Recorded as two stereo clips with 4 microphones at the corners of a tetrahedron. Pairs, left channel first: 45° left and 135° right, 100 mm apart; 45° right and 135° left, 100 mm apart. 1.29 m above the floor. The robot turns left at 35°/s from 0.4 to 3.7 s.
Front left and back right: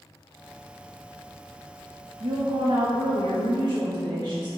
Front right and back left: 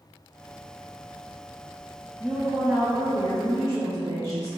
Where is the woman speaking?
125° right, 0.6 m; by 4.5 s 175° right, 0.6 m.